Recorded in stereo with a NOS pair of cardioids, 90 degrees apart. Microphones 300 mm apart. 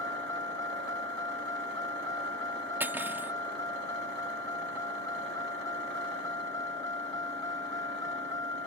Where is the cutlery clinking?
5° right.